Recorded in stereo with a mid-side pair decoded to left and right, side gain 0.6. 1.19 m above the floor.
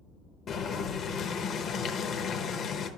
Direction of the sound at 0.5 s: 50° left.